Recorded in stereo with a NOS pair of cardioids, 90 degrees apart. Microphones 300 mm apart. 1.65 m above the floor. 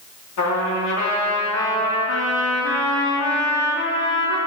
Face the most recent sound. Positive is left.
turn(degrees=70)